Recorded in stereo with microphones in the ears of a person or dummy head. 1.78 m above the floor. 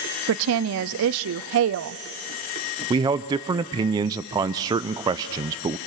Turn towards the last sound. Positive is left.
turn(degrees=-20)  # may be behind; listen again after turning